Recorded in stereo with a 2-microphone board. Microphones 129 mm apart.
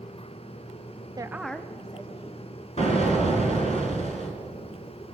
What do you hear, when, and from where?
1.2 s a woman speaking: 30° right (ahead or behind), 0.6 m; by 3.8 s 50° left (ahead or behind), 3 m
2.8 s an explosion: 55° left (ahead or behind), 2 m